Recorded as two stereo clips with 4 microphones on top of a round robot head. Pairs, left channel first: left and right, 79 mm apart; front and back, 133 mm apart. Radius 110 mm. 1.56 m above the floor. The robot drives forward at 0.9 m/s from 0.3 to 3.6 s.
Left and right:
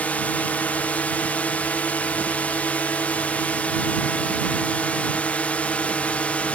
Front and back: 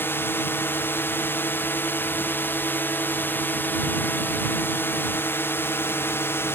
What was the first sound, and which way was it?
A drone, 50° left.